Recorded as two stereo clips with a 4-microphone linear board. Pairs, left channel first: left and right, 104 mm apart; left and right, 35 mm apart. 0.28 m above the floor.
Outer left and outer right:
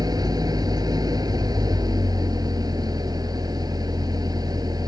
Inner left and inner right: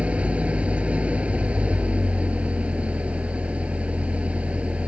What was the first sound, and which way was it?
An engine running, 40° right (ahead or behind).